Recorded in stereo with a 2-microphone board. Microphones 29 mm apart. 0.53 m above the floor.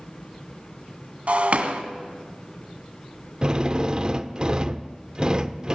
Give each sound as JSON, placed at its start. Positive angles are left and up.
{"t": 1.3, "sound": "breaking glass", "side_deg": -50, "distance_m": 2.0}
{"t": 3.4, "sound": "a drill", "side_deg": -30, "distance_m": 0.8}